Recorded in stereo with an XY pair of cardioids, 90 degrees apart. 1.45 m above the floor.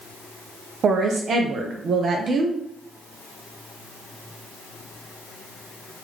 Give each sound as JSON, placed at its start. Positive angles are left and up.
{"t": 0.8, "sound": "a woman speaking", "azimuth_deg": -55, "distance_m": 0.6}